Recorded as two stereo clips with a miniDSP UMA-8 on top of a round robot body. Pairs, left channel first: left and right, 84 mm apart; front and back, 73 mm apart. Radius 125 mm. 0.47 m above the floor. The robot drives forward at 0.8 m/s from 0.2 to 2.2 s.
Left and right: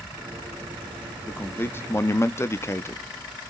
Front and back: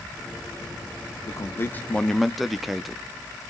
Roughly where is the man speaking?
Ahead left.